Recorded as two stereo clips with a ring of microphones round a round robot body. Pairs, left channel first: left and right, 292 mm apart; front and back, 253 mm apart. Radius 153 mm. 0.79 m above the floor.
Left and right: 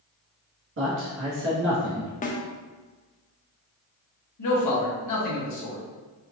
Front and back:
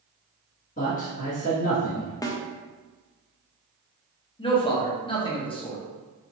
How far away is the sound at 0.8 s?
About 1.4 m.